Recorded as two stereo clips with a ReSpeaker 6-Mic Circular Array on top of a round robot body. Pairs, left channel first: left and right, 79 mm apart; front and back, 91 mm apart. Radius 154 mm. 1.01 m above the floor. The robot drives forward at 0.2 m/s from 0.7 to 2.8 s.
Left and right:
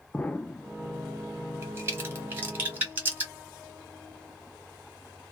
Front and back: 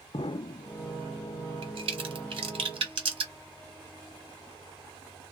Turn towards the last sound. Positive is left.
turn(degrees=-155)